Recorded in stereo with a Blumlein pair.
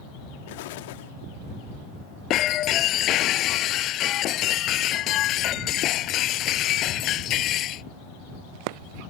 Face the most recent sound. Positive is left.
turn(degrees=35)